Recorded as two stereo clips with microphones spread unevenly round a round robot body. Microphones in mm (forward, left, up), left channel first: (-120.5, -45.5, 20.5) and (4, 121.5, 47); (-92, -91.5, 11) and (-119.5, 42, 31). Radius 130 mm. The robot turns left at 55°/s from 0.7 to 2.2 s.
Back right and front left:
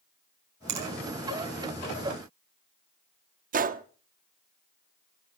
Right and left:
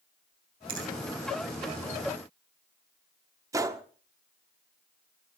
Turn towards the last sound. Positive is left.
turn(degrees=35)